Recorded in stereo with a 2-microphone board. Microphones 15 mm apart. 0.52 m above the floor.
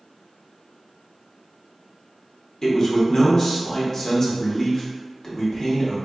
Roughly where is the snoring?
I don't hear snoring.